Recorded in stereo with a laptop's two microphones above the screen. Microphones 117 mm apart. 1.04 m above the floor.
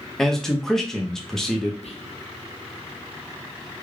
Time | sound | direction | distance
0.2 | a man speaking | 5° left (ahead or behind) | 0.9 m
1.8 | whispering | 65° left (ahead or behind) | 0.6 m